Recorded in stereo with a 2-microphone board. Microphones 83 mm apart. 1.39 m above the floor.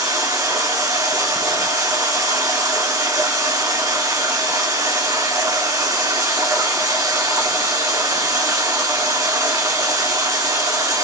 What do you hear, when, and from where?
0.0 s running water: 45° right (ahead or behind), 1.2 m